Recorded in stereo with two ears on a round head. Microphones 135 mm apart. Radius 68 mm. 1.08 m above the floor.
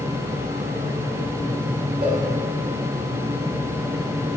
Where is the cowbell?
40° right (ahead or behind), 4 m.